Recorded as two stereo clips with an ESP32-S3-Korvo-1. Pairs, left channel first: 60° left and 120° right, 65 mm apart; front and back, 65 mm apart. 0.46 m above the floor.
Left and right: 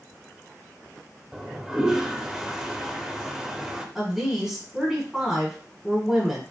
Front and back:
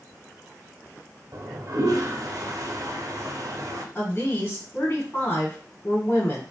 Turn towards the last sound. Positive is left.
turn(degrees=-45)